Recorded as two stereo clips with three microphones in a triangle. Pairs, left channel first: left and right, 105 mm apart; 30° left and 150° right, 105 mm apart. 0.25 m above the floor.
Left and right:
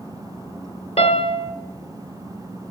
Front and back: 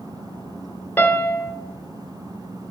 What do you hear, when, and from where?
1.0 s a piano: 100° left, 0.8 m